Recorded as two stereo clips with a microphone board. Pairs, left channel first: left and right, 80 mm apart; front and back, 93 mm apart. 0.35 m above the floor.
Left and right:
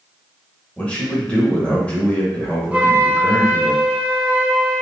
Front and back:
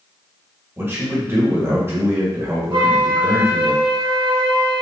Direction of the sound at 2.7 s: 160° right.